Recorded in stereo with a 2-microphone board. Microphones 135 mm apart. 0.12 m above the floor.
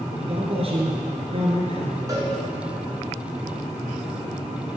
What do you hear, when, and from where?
0.1 s a man speaking: 50° right (ahead or behind), 1.6 m
2.1 s a cowbell: 25° right (ahead or behind), 1.5 m